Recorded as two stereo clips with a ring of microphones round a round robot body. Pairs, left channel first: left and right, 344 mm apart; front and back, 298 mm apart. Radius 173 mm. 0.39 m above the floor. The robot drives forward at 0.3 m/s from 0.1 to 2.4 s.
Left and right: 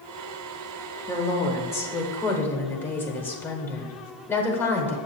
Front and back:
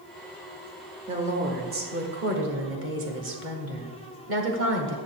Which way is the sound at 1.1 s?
155° left.